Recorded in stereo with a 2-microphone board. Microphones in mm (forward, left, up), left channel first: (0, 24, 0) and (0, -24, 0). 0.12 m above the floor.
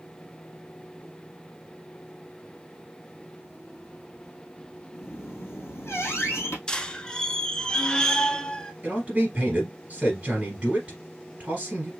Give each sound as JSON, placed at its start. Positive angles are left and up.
{"t": 4.9, "sound": "a squeak", "side_deg": 65, "distance_m": 1.6}
{"t": 6.7, "sound": "a squeak", "side_deg": 15, "distance_m": 0.6}
{"t": 8.8, "sound": "a man speaking", "side_deg": -25, "distance_m": 2.0}